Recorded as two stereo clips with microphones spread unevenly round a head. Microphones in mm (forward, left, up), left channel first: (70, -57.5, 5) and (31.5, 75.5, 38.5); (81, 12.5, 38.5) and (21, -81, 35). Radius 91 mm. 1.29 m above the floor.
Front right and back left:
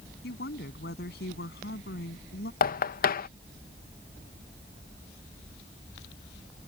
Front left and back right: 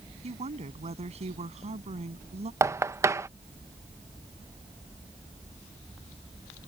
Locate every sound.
0.2 s a woman speaking: 100° right
2.6 s knocking: 55° right